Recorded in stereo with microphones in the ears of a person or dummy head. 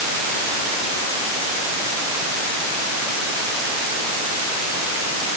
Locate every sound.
Only background noise.